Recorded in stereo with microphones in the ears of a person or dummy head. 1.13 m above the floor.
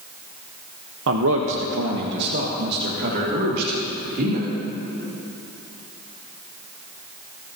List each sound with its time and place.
1.1 s a man speaking: 70° right (ahead or behind), 0.8 m; by 4.5 s 50° right (ahead or behind), 2.5 m